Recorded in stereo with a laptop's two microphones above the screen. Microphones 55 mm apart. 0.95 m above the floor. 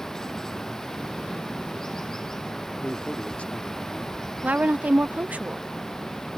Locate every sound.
0.0 s running water: 10° left (ahead or behind)
2.8 s a man speaking: 25° left (ahead or behind)
4.4 s a woman speaking: 35° right (ahead or behind)